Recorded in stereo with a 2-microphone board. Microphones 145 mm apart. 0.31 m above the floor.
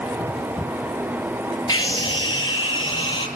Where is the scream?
30° left (ahead or behind), 4.5 m; by 3.3 s 35° left (ahead or behind), 7 m.